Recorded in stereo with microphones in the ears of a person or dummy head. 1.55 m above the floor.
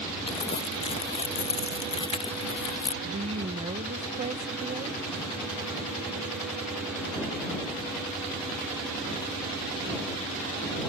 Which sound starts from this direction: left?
Crumpling, at 0.3 s.